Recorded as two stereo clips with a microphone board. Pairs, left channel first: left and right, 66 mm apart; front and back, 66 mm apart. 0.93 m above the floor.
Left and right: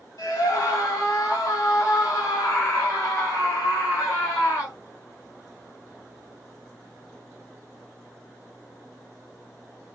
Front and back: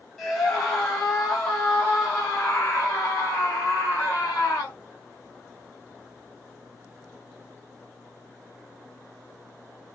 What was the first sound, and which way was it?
A scream, 70° left.